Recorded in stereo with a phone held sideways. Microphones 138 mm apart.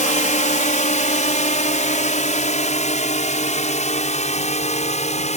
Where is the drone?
60° left (ahead or behind); by 5.4 s 55° left (ahead or behind).